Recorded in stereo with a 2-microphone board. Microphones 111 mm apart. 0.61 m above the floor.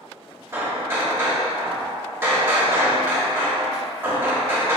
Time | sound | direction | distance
0.5 | hammering | 20° right (ahead or behind) | 0.7 m